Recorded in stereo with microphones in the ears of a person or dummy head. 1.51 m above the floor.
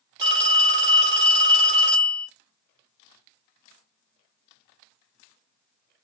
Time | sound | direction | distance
0.2 | a phone ringing | 20° right (ahead or behind) | 0.6 m